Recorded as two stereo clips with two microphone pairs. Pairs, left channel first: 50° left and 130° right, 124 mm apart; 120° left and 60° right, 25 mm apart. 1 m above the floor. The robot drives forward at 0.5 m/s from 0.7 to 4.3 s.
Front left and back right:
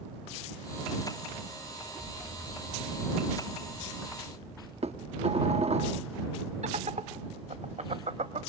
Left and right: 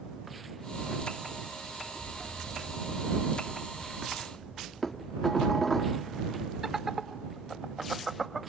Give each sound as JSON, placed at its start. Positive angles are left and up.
{"t": 2.0, "sound": "an explosion", "azimuth_deg": 30, "distance_m": 5.0}
{"t": 4.8, "sound": "dishes clattering", "azimuth_deg": -160, "distance_m": 1.2}
{"t": 6.6, "sound": "laughter", "azimuth_deg": -135, "distance_m": 1.8}